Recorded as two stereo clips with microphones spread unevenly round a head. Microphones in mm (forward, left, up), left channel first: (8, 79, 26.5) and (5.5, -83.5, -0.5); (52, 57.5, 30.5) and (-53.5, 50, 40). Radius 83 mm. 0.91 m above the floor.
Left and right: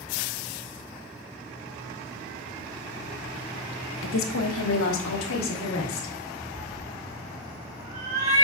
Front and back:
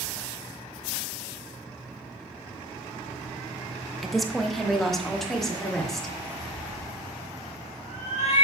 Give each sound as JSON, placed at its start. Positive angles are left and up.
{"t": 4.0, "sound": "a woman speaking", "azimuth_deg": 95, "distance_m": 1.1}
{"t": 6.5, "sound": "a cat meowing", "azimuth_deg": -40, "distance_m": 3.5}